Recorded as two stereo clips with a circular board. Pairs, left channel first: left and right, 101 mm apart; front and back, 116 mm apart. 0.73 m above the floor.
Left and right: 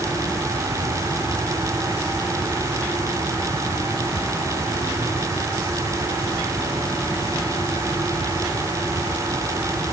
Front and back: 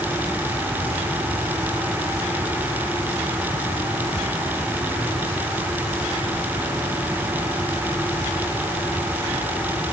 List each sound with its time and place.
Only background noise.